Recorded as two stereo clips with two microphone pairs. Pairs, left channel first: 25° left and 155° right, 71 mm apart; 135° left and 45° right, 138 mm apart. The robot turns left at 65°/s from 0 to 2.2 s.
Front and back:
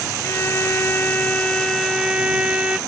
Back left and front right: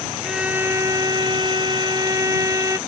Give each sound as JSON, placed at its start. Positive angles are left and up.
{"t": 0.2, "sound": "a violin", "azimuth_deg": 40}